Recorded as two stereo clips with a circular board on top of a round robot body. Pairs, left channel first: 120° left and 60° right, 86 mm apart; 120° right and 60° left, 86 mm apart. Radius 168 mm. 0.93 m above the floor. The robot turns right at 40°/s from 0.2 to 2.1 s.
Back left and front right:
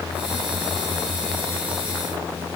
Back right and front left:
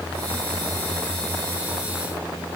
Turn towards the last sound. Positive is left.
No sound to turn to.